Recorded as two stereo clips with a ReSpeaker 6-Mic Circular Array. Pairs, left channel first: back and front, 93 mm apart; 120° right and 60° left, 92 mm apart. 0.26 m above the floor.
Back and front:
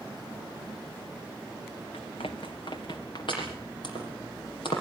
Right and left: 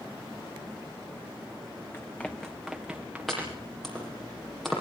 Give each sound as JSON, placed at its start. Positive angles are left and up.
{"t": 1.9, "sound": "running footsteps", "azimuth_deg": 175, "distance_m": 1.3}
{"t": 3.3, "sound": "chopping", "azimuth_deg": 150, "distance_m": 7.0}